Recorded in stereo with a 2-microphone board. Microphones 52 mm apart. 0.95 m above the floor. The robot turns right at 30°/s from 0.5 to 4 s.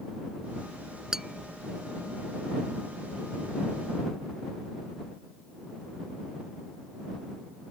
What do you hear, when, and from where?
1.1 s tapping: 10° right (ahead or behind); by 1.4 s centre (ahead or behind)